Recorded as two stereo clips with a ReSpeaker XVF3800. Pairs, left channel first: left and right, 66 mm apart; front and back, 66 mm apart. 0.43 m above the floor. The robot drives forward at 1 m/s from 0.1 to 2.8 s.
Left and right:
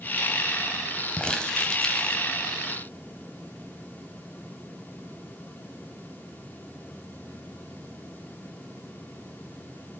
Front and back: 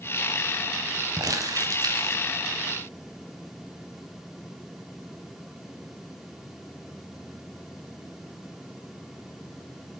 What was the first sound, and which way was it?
Crumpling, 165° left.